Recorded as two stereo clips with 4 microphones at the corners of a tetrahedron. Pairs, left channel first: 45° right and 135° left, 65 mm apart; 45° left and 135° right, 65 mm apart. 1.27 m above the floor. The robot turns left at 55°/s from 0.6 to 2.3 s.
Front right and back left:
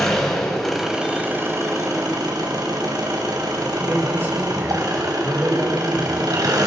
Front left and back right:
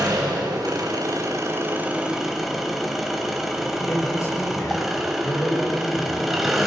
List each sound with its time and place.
0.0 s an engine running: 125° right, 4.5 m; by 6.7 s 140° left, 4.5 m
3.8 s a man speaking: 80° left, 7.5 m